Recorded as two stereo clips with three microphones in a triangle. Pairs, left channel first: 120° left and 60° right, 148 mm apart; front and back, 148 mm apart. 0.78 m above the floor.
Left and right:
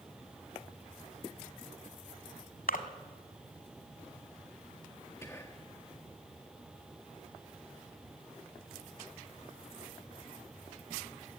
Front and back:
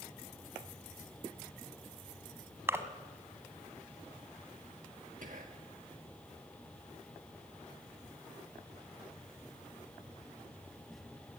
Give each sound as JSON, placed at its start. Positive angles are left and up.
{"t": 2.7, "sound": "a splash", "azimuth_deg": 105, "distance_m": 1.6}
{"t": 5.2, "sound": "whispering", "azimuth_deg": -170, "distance_m": 1.3}